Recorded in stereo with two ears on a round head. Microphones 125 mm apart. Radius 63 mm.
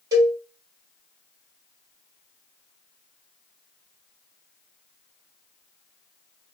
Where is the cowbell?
25° right (ahead or behind), 1.4 m.